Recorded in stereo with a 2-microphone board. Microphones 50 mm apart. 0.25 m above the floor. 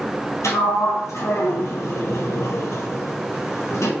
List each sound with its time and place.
0.4 s a sliding door: 85° left, 1.6 m